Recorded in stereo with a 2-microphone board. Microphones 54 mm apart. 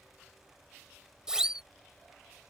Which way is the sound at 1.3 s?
15° right (ahead or behind).